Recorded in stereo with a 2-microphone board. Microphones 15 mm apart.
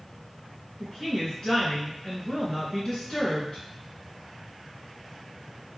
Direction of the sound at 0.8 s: 40° left (ahead or behind).